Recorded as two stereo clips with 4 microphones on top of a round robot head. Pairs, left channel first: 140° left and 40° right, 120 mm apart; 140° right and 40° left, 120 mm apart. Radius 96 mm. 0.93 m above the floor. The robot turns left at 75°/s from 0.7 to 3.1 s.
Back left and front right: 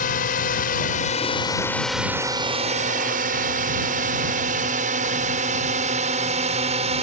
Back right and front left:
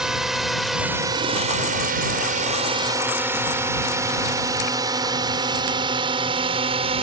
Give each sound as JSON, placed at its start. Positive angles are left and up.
{"t": 0.0, "sound": "a drone", "azimuth_deg": 130}